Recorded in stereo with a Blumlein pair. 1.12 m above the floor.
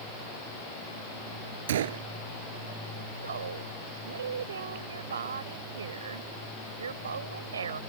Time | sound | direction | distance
1.7 | a gunshot | 60° right | ?
3.2 | a woman speaking | 70° right | ?